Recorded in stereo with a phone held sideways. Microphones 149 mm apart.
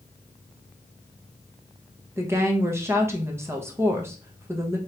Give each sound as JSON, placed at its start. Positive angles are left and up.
{"t": 2.2, "sound": "a woman speaking", "side_deg": -15, "distance_m": 0.9}